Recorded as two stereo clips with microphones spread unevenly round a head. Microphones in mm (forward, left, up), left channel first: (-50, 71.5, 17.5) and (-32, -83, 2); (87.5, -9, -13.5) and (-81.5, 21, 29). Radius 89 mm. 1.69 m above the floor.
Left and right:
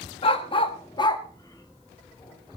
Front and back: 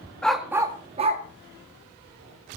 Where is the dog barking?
90° left, 1.3 m; by 2.6 s 170° left, 3 m.